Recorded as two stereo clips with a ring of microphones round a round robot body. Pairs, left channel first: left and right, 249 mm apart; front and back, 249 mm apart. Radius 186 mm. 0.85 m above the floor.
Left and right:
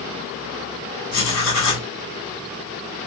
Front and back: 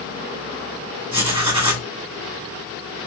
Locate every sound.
1.1 s writing: 110° left, 2.0 m